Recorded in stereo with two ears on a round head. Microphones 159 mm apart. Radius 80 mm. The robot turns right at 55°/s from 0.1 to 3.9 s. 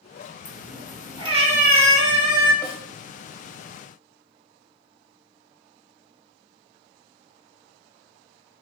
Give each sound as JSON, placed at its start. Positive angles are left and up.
{"t": 0.5, "sound": "a cat meowing", "azimuth_deg": 165, "distance_m": 1.0}
{"t": 2.6, "sound": "a snare drum", "side_deg": 25, "distance_m": 0.7}